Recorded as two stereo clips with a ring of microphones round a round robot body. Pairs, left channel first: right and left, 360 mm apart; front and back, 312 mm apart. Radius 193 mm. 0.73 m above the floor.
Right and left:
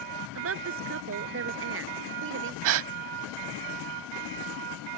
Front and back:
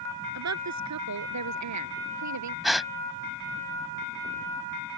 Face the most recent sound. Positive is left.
turn(degrees=90)